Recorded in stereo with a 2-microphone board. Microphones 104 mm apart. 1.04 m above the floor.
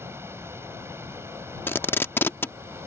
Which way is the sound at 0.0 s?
25° right (ahead or behind).